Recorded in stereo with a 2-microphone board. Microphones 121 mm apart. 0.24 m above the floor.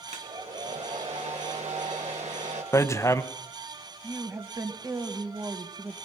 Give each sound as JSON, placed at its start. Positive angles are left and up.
{"t": 0.1, "sound": "a hair dryer", "side_deg": -65, "distance_m": 3.0}
{"t": 2.7, "sound": "hammering", "side_deg": 25, "distance_m": 0.9}
{"t": 4.0, "sound": "a woman speaking", "side_deg": -25, "distance_m": 1.3}